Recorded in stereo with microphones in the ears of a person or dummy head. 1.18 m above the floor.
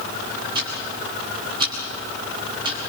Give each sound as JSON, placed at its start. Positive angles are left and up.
{"t": 0.6, "sound": "ticking", "side_deg": -25, "distance_m": 7.0}